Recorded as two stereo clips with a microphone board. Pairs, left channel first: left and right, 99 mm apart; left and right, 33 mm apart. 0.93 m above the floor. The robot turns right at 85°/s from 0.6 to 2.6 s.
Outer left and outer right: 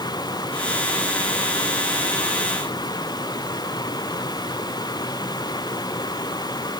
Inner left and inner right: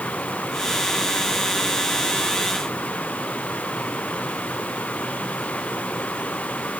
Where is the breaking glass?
No breaking glass in this recording.